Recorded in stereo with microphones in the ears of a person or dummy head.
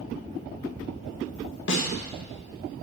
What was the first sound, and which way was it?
A snare drum, 60° left (ahead or behind).